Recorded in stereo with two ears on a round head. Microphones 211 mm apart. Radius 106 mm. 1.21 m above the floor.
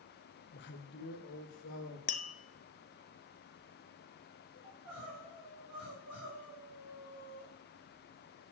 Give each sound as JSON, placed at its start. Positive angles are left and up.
{"t": 0.5, "sound": "a man speaking", "side_deg": 45, "distance_m": 0.9}
{"t": 2.1, "sound": "tapping", "side_deg": 35, "distance_m": 0.6}
{"t": 4.6, "sound": "crying", "side_deg": -80, "distance_m": 5.0}